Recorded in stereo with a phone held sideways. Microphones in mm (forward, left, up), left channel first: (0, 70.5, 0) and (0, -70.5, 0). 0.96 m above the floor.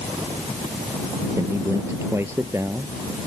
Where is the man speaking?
20° right (ahead or behind).